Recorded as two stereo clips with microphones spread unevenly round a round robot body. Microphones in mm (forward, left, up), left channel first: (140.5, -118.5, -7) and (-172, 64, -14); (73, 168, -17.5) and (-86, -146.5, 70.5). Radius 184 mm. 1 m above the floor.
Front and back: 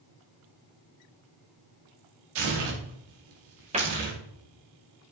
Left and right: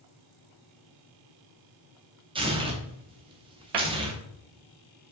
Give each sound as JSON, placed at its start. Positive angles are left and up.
{"t": 2.4, "sound": "tearing paper", "azimuth_deg": 165, "distance_m": 2.5}
{"t": 3.7, "sound": "a cupboard door", "azimuth_deg": -140, "distance_m": 2.0}